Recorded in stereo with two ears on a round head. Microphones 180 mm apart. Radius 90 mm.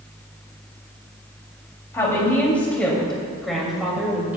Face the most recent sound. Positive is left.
turn(degrees=-10)  # may be behind; listen again after turning